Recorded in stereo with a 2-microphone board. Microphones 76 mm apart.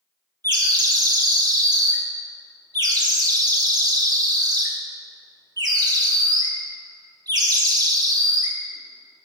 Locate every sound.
0.4 s a bird: 60° right (ahead or behind), 1.1 m